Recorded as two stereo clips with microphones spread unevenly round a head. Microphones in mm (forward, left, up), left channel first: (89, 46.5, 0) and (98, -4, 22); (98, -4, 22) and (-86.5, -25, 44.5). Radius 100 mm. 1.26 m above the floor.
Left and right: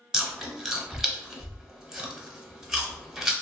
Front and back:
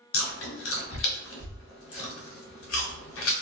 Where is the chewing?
5° right, 0.8 m.